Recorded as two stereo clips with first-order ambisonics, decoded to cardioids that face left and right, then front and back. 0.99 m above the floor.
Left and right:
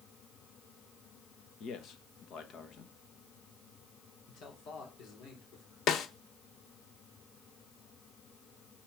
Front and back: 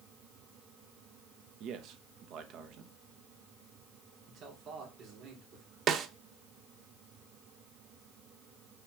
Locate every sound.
1.6 s a man speaking: 140° left, 1.2 m
4.3 s a man speaking: 130° left, 3.5 m
5.9 s a snare drum: 135° left, 0.7 m